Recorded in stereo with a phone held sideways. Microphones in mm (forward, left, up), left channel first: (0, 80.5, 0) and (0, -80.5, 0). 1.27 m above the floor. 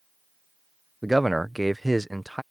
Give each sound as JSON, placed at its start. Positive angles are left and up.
{"t": 1.0, "sound": "a man speaking", "side_deg": 0}